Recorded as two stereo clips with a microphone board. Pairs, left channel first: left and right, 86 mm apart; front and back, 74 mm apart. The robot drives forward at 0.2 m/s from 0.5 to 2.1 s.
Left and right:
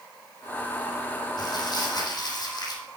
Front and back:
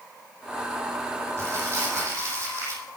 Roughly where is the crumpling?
Behind left.